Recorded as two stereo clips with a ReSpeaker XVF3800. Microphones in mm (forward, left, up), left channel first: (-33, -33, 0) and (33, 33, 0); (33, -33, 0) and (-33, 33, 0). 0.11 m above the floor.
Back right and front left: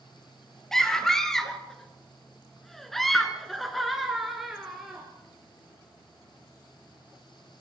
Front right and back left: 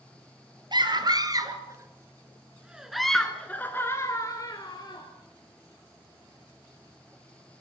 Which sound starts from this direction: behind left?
A scream, at 0.7 s.